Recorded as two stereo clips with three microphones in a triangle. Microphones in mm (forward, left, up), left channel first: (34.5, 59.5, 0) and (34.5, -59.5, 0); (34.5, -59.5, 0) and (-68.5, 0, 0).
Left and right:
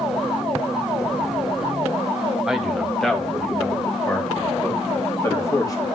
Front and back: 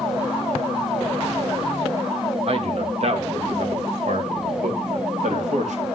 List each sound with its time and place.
2.5 s a man speaking: 175° right, 2 m; by 5.9 s 150° left, 3 m